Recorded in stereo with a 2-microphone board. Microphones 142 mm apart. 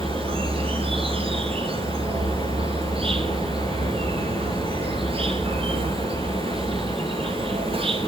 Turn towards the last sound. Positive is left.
turn(degrees=-40)  # may be behind; listen again after turning